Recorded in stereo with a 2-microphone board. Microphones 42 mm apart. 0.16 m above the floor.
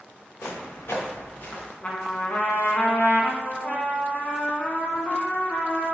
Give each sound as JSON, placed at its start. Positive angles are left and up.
{"t": 0.4, "sound": "footsteps", "side_deg": 85, "distance_m": 1.2}
{"t": 1.8, "sound": "a trumpet", "side_deg": 35, "distance_m": 0.6}